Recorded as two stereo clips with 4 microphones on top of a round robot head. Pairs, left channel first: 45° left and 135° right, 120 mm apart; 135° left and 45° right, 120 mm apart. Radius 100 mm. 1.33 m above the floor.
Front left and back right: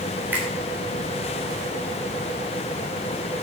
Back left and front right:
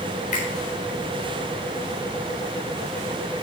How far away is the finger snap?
About 4 m.